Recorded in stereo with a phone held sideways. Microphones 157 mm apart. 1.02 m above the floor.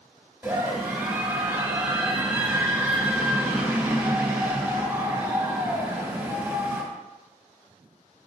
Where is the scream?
10° right (ahead or behind), 2.5 m.